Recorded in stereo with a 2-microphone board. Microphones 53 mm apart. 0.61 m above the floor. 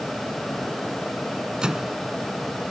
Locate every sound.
1.6 s a microwave: 15° right (ahead or behind)